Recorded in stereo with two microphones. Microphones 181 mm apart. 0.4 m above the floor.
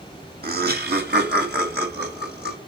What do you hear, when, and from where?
0.4 s laughter: 60° right (ahead or behind), 1.9 m; by 2.6 s 65° right (ahead or behind), 3 m